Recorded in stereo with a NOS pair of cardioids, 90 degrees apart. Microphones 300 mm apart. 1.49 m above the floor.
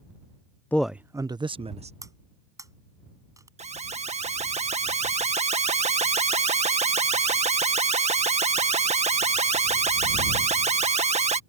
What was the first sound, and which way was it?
A man speaking, 5° left.